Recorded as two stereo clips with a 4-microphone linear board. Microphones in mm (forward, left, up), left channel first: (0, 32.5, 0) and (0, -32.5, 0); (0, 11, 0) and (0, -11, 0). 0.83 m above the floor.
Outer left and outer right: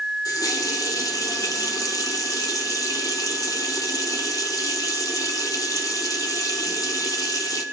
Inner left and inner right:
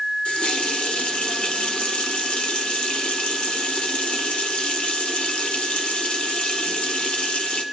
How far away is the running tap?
About 1.7 m.